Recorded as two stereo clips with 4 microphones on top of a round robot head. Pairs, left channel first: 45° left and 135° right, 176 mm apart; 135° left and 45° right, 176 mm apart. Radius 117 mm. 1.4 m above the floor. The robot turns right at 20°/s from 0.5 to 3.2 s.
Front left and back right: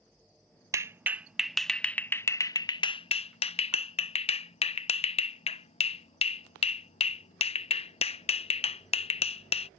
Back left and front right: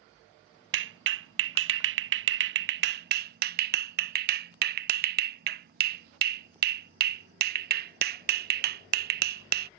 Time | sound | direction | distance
0.7 | a clap | 60° right | ?